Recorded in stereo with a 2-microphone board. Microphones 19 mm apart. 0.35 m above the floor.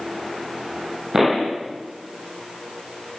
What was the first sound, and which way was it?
A pop, 30° right (ahead or behind).